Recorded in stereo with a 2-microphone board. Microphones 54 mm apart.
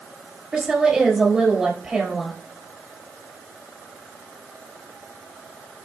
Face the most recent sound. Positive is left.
turn(degrees=-10)  # may be behind; listen again after turning